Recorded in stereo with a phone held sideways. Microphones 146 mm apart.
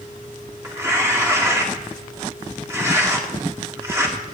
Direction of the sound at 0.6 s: 20° right (ahead or behind).